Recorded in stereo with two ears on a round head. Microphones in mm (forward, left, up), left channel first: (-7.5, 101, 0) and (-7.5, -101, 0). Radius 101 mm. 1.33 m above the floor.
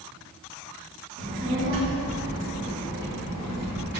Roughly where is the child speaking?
Right.